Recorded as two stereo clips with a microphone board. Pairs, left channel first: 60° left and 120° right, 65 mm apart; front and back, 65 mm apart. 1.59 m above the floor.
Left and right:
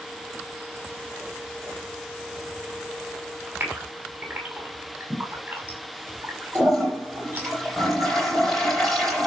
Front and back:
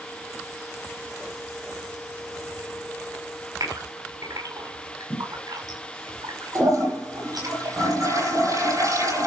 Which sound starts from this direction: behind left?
A toilet flushing, at 6.5 s.